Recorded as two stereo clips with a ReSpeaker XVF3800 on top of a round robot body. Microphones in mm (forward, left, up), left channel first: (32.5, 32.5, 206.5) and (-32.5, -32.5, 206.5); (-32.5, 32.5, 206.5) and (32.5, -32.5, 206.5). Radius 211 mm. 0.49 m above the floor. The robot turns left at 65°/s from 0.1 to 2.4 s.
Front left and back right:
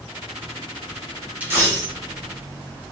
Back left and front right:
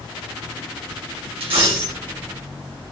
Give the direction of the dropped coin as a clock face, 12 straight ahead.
2 o'clock.